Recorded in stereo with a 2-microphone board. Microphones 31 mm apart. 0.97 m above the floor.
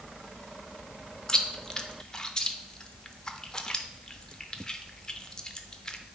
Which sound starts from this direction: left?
Chewing, at 1.3 s.